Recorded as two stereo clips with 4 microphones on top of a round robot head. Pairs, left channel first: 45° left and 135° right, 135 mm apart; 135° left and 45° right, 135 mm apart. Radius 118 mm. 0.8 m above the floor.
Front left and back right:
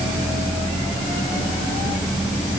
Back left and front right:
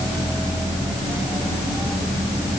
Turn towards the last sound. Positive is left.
No sound to turn to.